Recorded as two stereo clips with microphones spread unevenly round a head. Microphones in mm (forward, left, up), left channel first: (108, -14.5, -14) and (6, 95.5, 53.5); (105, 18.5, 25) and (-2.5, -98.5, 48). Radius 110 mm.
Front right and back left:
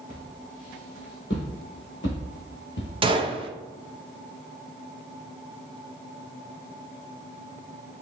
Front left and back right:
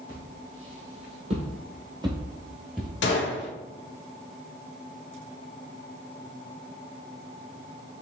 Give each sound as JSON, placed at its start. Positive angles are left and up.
{"t": 0.1, "sound": "footsteps", "azimuth_deg": -110, "distance_m": 2.5}
{"t": 3.0, "sound": "a gunshot", "azimuth_deg": 85, "distance_m": 0.7}